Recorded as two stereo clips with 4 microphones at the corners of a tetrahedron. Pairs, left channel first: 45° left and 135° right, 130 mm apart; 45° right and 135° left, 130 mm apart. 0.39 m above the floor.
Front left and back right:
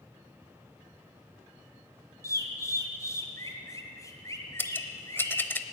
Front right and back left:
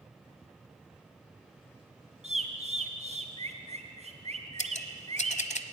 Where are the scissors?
30° right, 0.9 m.